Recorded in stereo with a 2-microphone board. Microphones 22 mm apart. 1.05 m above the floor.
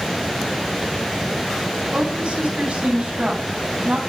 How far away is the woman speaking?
About 8.5 m.